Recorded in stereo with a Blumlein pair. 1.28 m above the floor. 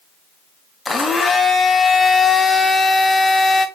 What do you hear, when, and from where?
0.8 s a blender: 10° left, 1.0 m